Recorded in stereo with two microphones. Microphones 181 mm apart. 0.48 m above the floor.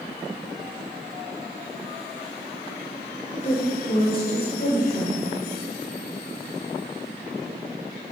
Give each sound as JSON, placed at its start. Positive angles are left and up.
{"t": 3.3, "sound": "a woman speaking", "side_deg": 35, "distance_m": 2.0}